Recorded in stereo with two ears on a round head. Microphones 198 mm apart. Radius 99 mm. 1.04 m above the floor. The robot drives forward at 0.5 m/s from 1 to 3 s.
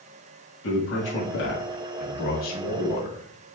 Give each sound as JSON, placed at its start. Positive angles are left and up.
{"t": 0.6, "sound": "a man speaking", "side_deg": 65, "distance_m": 1.3}